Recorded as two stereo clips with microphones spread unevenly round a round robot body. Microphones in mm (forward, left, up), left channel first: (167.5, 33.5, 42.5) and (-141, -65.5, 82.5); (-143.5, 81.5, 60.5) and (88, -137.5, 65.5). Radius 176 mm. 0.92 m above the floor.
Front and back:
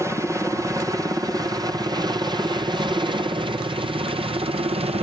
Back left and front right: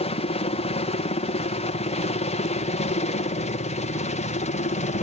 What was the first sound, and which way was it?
A helicopter, 115° left.